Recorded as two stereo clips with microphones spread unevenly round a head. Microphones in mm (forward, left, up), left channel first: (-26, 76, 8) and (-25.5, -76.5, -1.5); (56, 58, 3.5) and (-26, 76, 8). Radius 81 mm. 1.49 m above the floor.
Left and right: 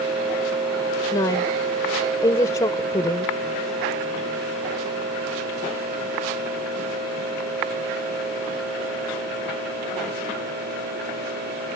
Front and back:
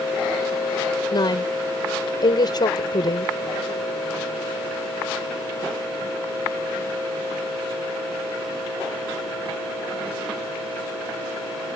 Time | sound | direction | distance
1.1 | a woman speaking | 20° left | ?